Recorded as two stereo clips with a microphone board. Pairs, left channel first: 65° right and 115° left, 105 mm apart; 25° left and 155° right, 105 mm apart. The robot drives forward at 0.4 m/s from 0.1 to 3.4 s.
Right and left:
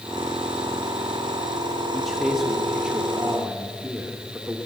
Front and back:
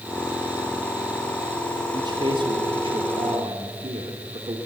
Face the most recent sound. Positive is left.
turn(degrees=-170)